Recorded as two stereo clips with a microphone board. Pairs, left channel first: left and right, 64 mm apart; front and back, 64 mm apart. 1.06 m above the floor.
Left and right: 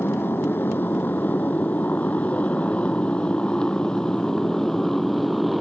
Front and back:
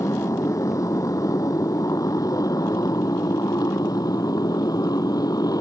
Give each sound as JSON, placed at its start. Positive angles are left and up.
{"t": 0.0, "sound": "a motorcycle", "azimuth_deg": 35}